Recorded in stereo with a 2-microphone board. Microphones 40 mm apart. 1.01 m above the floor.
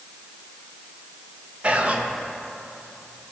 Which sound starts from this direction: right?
Whispering, at 1.6 s.